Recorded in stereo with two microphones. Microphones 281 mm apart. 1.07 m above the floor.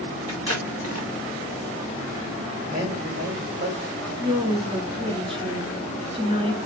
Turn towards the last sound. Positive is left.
turn(degrees=-20)  # may be behind; listen again after turning